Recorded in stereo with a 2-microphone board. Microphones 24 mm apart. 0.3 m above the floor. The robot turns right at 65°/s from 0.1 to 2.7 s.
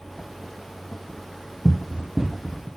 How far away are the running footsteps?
About 0.6 m.